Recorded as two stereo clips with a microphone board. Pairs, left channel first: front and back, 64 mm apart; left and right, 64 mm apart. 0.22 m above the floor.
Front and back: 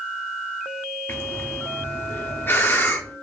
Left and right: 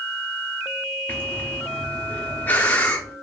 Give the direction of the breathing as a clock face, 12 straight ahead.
11 o'clock.